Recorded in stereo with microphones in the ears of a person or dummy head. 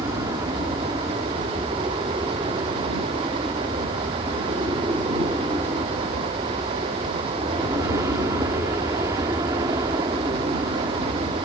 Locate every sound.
0.0 s an aircraft: 15° right (ahead or behind)